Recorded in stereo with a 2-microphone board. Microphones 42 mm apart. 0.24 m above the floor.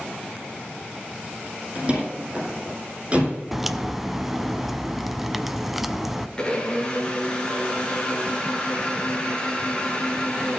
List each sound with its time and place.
1.8 s a door slam: 25° right (ahead or behind), 6.5 m
3.5 s a crack: 5° right (ahead or behind), 0.6 m
6.4 s a blender: 20° left (ahead or behind), 2.5 m